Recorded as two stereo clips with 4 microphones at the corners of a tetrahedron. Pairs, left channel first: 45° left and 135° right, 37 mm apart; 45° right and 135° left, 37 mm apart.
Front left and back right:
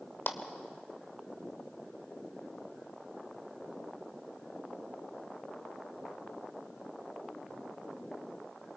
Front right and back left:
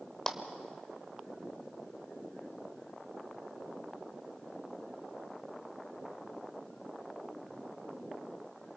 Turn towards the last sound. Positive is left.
turn(degrees=30)